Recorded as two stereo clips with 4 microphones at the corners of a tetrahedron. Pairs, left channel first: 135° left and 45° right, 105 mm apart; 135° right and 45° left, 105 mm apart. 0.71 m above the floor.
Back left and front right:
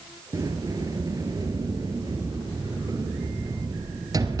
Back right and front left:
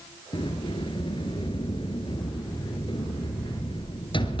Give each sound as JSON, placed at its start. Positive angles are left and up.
{"t": 0.3, "sound": "a sliding door", "azimuth_deg": -100, "distance_m": 2.5}